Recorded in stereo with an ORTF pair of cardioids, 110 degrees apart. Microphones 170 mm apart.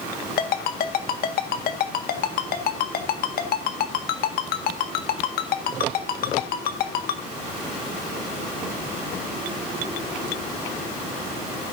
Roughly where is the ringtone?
Ahead left.